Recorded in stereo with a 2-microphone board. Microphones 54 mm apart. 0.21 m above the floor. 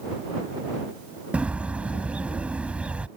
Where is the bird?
25° right (ahead or behind).